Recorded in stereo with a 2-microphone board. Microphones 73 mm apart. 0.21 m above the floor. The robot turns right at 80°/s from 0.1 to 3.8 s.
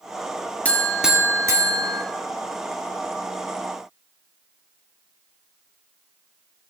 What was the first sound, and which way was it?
A buzzer, 160° left.